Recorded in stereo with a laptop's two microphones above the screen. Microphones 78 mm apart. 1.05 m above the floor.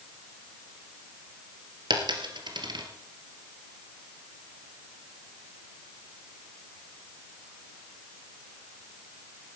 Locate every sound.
1.9 s a dropped coin: 70° right (ahead or behind), 2.5 m